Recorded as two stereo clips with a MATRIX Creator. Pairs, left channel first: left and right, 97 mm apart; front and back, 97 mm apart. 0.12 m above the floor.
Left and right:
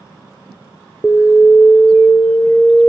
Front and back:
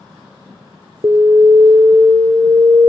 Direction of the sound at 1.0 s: 170° left.